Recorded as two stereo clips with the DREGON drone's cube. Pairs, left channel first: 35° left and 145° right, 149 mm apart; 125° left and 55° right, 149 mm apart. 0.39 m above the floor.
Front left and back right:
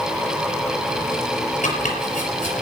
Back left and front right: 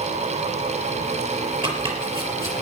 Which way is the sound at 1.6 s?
Straight ahead.